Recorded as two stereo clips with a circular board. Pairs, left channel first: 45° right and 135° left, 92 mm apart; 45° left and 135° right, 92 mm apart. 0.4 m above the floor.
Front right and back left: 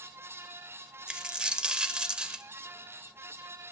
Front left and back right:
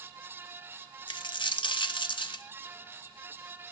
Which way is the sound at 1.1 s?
55° left.